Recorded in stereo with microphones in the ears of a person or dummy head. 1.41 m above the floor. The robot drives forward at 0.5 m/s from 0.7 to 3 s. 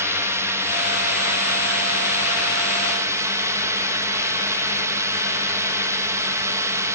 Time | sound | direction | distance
0.0 | a drone | 15° right (ahead or behind) | ?